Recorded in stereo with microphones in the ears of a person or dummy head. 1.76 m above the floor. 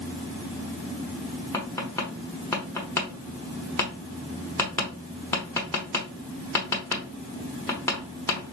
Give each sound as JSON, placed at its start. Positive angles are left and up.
{"t": 1.5, "sound": "tapping", "side_deg": 15, "distance_m": 0.9}